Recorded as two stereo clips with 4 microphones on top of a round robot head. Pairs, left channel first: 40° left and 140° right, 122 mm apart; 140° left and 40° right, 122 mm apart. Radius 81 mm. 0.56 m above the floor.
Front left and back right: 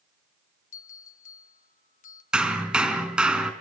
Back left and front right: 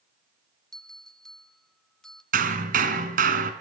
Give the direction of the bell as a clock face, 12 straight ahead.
10 o'clock.